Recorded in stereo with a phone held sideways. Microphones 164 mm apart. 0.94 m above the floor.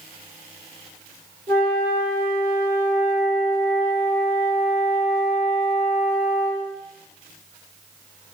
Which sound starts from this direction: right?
A flute, at 1.5 s.